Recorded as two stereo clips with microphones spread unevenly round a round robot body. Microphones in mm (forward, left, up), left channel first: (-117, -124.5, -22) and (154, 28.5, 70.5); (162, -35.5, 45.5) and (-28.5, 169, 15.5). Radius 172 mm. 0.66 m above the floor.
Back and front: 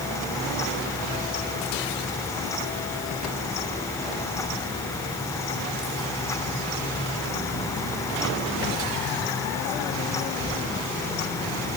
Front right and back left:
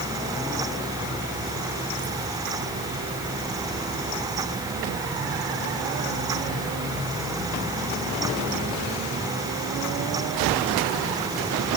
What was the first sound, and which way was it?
Only background noise.